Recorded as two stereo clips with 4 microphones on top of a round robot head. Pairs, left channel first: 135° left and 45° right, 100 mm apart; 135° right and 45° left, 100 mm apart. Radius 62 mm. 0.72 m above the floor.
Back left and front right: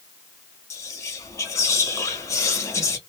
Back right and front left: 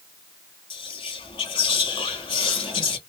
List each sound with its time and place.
0.7 s whispering: 165° right, 1.3 m